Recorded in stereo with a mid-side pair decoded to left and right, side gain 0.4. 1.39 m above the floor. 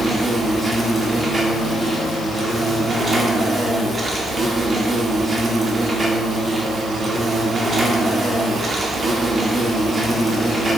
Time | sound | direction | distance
0.0 | an insect | 30° right | 1.9 m